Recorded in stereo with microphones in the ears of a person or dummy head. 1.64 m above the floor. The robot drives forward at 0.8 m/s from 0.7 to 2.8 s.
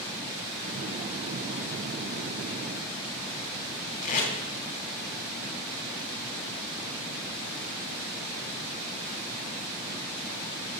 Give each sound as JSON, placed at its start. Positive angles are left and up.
{"t": 4.0, "sound": "tape being pulled", "side_deg": 40, "distance_m": 4.0}